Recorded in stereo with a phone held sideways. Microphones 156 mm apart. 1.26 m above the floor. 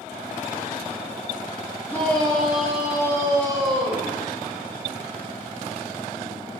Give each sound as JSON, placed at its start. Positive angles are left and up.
{"t": 1.9, "sound": "a shout", "side_deg": 15, "distance_m": 3.0}